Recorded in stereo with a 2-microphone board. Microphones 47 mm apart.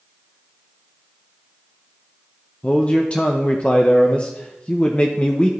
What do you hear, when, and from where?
2.6 s a man speaking: 30° left (ahead or behind), 0.6 m